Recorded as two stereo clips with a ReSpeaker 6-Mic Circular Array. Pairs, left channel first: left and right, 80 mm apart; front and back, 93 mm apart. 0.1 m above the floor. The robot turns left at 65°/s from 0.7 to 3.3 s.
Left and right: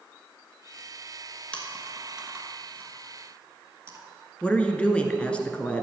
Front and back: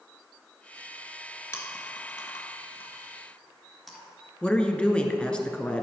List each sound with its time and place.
1.5 s chewing: 25° left, 1.8 m; by 4.0 s 90° right, 1.8 m
4.4 s a woman speaking: 50° left, 1.1 m